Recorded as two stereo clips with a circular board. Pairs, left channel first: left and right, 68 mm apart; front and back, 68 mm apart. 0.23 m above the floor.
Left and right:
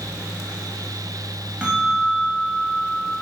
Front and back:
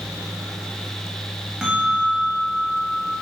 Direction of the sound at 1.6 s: 120° right.